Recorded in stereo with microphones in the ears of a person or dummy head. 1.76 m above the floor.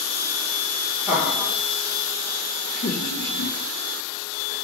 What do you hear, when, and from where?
1.1 s laughter: 5° right (ahead or behind), 1.1 m; by 4.5 s 85° left, 1.3 m